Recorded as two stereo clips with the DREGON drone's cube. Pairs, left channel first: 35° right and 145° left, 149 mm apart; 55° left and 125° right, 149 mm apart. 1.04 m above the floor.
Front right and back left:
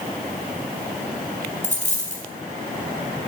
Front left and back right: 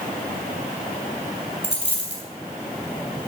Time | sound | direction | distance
1.6 | a dropped coin | 5° left | 3.5 m